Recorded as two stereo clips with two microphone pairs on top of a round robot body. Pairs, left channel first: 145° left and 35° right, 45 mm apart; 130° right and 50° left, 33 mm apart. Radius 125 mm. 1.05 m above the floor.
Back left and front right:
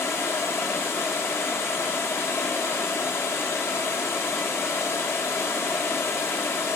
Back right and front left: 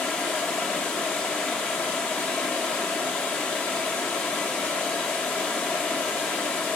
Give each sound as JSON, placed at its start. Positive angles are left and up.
{"t": 0.0, "sound": "running water", "azimuth_deg": -175, "distance_m": 1.0}